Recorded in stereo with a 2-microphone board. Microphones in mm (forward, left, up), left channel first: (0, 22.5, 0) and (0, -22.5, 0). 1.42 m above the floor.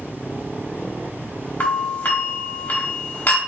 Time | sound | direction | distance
1.6 | a doorbell | 45° left (ahead or behind) | 1.2 m